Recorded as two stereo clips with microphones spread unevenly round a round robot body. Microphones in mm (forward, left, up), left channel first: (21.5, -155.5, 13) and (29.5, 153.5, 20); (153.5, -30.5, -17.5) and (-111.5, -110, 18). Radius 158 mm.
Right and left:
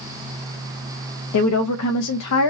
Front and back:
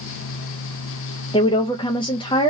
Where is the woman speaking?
55° right, 0.5 m.